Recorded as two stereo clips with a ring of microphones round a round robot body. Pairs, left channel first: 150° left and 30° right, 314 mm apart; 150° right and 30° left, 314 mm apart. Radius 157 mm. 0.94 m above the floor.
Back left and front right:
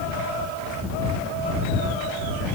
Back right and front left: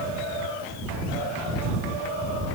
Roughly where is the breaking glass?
No breaking glass in this recording.